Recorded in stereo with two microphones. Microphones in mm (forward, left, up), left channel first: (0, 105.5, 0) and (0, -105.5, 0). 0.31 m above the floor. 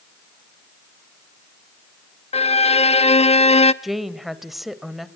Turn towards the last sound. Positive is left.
turn(degrees=0)  # may be behind; listen again after turning